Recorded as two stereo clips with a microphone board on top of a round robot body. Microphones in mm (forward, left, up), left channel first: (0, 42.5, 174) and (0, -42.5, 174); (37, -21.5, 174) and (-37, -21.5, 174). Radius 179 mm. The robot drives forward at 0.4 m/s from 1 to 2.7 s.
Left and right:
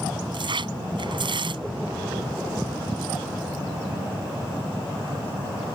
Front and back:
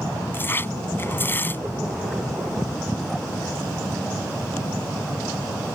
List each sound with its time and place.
0.3 s tearing paper: 60° right; by 1.6 s 65° right